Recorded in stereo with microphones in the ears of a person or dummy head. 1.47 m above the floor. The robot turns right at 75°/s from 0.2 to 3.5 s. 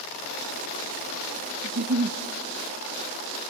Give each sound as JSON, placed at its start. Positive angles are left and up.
{"t": 1.6, "sound": "a giggle", "azimuth_deg": -125, "distance_m": 0.6}